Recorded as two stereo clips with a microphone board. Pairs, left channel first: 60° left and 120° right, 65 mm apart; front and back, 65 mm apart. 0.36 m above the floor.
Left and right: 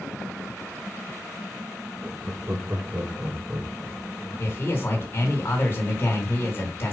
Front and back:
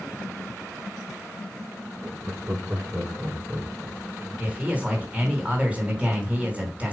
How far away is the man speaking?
About 3 m.